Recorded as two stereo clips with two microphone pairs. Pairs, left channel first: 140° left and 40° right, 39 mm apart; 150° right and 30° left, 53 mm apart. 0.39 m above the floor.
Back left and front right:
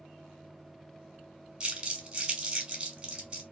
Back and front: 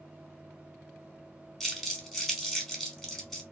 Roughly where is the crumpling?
Right.